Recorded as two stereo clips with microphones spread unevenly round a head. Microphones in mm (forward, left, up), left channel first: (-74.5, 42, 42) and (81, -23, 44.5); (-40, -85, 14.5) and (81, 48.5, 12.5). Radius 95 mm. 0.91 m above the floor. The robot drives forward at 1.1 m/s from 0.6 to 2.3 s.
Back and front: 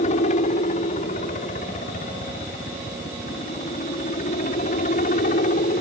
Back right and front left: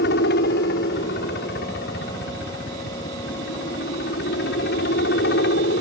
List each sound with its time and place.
0.0 s a helicopter: 160° right